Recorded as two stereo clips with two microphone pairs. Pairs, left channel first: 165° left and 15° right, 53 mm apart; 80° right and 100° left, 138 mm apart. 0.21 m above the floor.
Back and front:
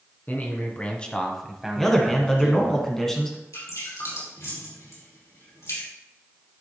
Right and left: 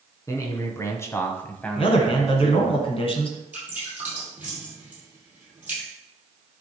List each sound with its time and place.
0.3 s a man speaking: 145° right, 1.7 m; by 2.8 s 20° left, 1.5 m
1.8 s a man speaking: 110° right, 1.7 m
3.5 s dripping: 175° left, 4 m